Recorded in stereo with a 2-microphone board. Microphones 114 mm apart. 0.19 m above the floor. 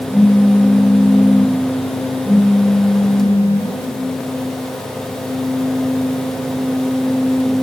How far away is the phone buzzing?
About 6 m.